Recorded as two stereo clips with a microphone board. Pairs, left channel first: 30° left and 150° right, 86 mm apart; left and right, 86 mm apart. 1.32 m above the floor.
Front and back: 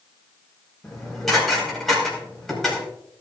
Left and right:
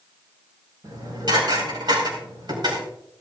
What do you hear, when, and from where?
0.8 s dishes clattering: 55° right, 4.5 m